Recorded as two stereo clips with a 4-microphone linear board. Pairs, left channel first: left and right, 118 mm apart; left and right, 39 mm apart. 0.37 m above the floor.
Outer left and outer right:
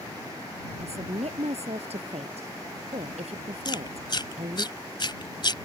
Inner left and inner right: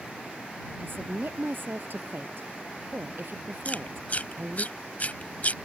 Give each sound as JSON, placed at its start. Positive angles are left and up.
{"t": 0.8, "sound": "a woman speaking", "side_deg": -65}
{"t": 3.6, "sound": "chewing", "side_deg": 40}